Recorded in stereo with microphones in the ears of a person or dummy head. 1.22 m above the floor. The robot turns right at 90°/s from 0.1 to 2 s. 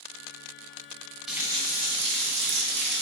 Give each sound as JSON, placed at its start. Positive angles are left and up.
{"t": 1.3, "sound": "a running tap", "azimuth_deg": 180, "distance_m": 0.6}